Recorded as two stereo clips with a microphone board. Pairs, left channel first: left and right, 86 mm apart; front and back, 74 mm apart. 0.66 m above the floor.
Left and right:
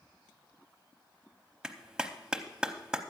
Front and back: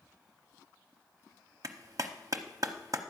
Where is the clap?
170° right, 0.8 m.